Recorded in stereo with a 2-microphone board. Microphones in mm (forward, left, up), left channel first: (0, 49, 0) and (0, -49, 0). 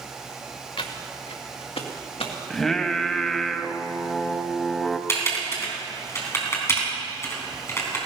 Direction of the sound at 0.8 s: 60° left (ahead or behind).